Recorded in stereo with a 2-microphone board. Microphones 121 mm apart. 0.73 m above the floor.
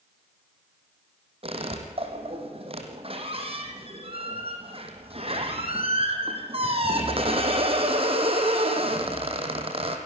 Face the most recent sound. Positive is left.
turn(degrees=-50)  # may be behind; listen again after turning